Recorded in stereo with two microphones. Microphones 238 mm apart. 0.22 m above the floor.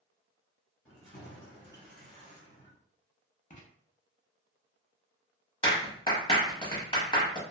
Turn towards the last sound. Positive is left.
turn(degrees=25)  # may be behind; listen again after turning